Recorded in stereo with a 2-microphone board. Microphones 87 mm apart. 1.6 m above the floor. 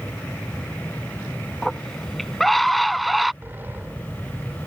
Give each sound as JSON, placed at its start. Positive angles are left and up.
{"t": 1.6, "sound": "a scream", "side_deg": 5}
{"t": 3.4, "sound": "a sliding door", "side_deg": -25}